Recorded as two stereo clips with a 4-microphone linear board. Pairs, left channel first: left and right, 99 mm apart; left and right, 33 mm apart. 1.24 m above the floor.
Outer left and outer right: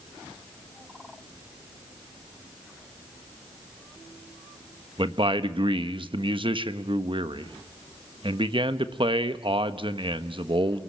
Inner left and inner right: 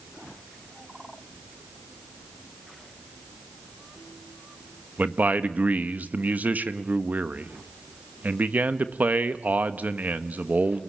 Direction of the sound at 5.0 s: 60° right (ahead or behind).